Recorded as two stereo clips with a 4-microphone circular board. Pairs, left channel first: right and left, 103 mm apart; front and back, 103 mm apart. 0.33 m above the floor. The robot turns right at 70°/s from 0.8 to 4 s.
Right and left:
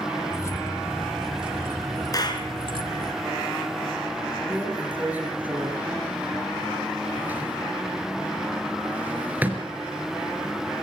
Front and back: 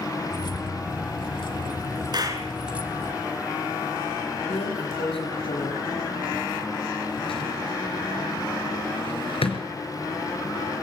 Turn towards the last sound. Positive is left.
turn(degrees=15)